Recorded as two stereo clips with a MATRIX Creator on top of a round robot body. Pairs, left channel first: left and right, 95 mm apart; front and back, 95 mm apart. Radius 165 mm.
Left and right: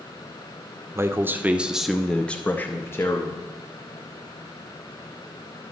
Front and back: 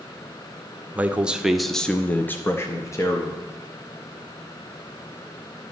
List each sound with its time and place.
0.9 s a man speaking: 120° right, 1.0 m; by 3.4 s 40° left, 1.3 m